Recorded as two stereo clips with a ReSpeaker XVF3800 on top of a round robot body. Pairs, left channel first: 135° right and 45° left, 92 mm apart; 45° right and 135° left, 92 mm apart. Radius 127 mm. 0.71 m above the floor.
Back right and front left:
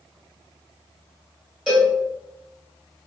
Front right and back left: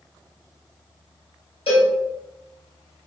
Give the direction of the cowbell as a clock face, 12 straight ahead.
1 o'clock.